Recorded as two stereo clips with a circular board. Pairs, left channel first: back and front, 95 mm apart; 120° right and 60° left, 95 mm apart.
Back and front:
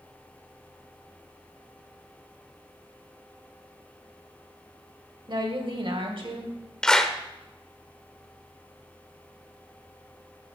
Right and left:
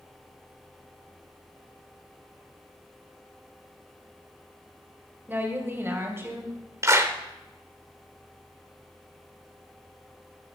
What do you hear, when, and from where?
5.3 s a woman speaking: 5° right, 1.9 m; by 6.6 s straight ahead, 3.5 m
6.8 s a clap: 100° left, 1.1 m